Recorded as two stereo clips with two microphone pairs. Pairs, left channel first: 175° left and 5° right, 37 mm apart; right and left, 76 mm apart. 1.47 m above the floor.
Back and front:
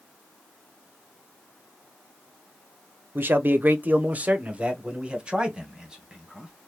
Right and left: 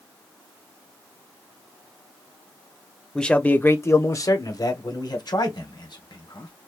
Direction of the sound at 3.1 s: 10° right.